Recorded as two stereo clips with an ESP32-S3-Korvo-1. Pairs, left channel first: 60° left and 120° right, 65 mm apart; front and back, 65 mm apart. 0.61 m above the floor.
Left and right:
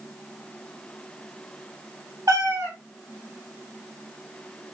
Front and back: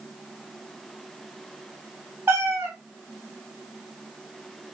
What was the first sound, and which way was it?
A cat meowing, 135° right.